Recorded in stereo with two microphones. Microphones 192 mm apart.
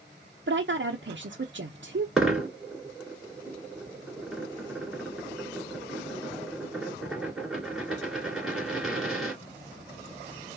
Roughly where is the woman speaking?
Right.